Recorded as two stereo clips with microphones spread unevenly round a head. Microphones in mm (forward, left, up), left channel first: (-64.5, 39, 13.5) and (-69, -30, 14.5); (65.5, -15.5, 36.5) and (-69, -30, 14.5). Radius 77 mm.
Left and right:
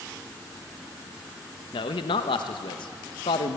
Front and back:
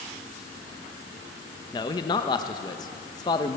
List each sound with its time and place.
1.7 s a man speaking: 70° left, 0.8 m